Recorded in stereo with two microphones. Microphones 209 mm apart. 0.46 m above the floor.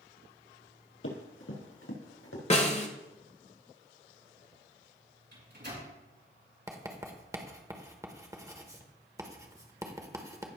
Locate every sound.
1.0 s running footsteps: 75° left (ahead or behind), 4.5 m; by 2.4 s 85° left, 3.5 m
2.5 s a snare drum: 30° left (ahead or behind), 1.2 m
5.3 s a microwave: 55° right (ahead or behind), 3.5 m
6.7 s writing: 15° right (ahead or behind), 1.1 m